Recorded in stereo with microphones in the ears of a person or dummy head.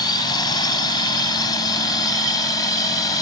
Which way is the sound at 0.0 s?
30° left (ahead or behind).